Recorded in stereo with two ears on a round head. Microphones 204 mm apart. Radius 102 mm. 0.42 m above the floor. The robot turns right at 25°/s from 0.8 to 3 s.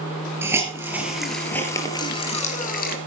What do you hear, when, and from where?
0.4 s a hiss: 10° right (ahead or behind), 3.5 m; by 3.0 s 45° left (ahead or behind), 3.5 m